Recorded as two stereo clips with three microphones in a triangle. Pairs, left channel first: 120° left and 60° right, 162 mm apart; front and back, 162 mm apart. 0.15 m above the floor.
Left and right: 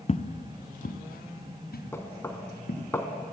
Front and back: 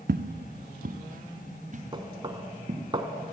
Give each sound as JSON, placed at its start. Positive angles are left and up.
{"t": 0.1, "sound": "footsteps", "azimuth_deg": 170, "distance_m": 0.5}
{"t": 1.9, "sound": "knocking", "azimuth_deg": 180, "distance_m": 0.8}